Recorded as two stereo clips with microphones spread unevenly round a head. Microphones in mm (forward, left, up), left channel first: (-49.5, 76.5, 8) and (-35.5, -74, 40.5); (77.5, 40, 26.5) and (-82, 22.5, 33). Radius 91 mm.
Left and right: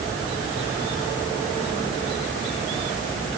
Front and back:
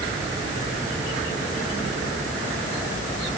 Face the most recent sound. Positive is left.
No sound to turn to.